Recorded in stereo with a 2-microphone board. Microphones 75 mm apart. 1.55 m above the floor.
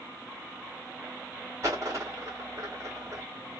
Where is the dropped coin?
45° right (ahead or behind), 1.7 m.